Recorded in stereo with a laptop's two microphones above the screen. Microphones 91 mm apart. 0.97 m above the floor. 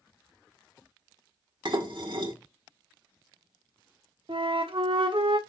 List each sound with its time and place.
1.6 s dishes clattering: 65° right (ahead or behind), 1.6 m
4.3 s a flute: 75° right (ahead or behind), 1.1 m